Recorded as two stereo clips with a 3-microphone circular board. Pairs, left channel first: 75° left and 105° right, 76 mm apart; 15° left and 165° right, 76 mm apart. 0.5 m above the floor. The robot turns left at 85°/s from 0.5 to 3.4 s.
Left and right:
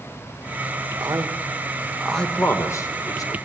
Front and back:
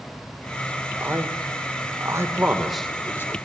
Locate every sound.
1.0 s a man speaking: 105° right, 1.8 m; by 3.4 s 55° left, 1.8 m